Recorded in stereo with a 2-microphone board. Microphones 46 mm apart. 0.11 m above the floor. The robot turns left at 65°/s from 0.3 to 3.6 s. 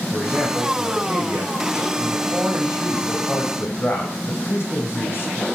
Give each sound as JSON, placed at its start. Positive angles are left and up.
{"t": 0.1, "sound": "a man speaking", "azimuth_deg": -15, "distance_m": 5.0}